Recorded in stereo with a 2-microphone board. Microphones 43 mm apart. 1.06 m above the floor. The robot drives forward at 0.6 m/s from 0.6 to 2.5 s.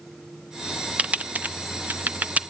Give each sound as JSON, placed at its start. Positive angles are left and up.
{"t": 1.0, "sound": "typing on a keyboard", "side_deg": -30, "distance_m": 0.7}